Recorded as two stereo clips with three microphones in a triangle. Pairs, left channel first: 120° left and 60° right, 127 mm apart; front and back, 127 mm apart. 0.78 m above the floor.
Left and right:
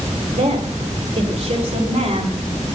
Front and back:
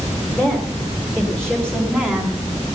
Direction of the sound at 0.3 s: 85° right.